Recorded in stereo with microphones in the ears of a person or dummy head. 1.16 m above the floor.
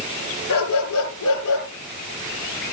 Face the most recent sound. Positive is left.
turn(degrees=75)  # may be behind; listen again after turning